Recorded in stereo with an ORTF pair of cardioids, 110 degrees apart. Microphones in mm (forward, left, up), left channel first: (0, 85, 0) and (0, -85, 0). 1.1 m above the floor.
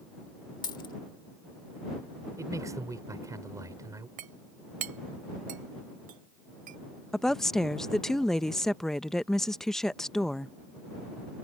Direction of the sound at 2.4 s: 20° right.